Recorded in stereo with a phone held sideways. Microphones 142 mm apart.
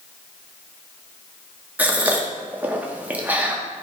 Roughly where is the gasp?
Centre.